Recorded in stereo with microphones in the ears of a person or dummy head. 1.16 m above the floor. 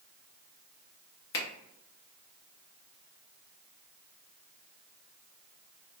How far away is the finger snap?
About 1.2 m.